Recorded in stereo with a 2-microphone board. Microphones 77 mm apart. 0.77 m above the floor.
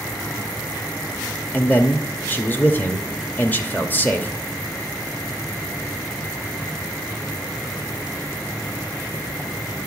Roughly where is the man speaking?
Left.